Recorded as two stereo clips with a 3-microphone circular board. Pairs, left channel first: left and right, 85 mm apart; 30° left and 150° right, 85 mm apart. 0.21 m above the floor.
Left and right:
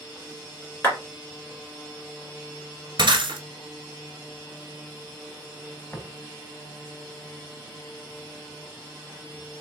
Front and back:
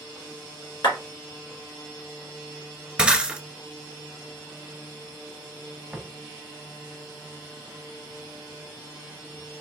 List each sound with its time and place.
0.8 s a clap: 25° left, 2.0 m
3.0 s breaking glass: 75° right, 0.8 m
5.9 s tapping: 140° left, 1.0 m